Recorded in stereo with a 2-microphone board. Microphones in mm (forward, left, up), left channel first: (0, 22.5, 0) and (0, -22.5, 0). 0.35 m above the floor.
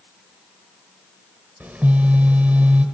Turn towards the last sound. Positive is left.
turn(degrees=-45)  # may be behind; listen again after turning